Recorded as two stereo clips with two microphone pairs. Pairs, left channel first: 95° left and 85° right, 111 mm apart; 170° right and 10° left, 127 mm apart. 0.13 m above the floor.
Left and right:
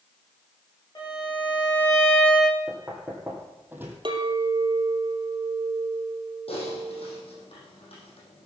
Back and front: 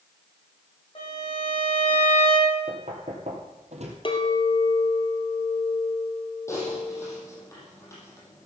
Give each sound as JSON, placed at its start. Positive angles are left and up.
{"t": 0.9, "sound": "a violin", "azimuth_deg": 150, "distance_m": 8.0}
{"t": 2.7, "sound": "knocking", "azimuth_deg": -10, "distance_m": 3.0}
{"t": 4.0, "sound": "a clink", "azimuth_deg": -125, "distance_m": 2.5}
{"t": 6.5, "sound": "typing on a keyboard", "azimuth_deg": 125, "distance_m": 6.0}